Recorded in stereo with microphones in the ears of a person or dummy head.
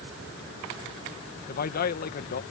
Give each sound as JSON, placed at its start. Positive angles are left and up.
{"t": 1.5, "sound": "a man speaking", "side_deg": 45}